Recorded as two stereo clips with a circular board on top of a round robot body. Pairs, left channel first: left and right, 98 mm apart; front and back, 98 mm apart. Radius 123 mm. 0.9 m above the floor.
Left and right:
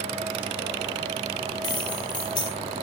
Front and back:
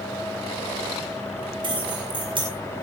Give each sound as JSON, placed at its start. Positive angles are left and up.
{"t": 1.6, "sound": "keys jangling", "azimuth_deg": 135, "distance_m": 5.0}